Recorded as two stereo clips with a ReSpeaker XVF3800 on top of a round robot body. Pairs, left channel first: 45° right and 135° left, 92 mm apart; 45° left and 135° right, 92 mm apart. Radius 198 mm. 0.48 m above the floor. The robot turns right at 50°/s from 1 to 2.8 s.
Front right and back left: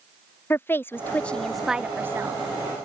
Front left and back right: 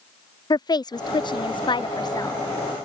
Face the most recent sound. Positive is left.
turn(degrees=105)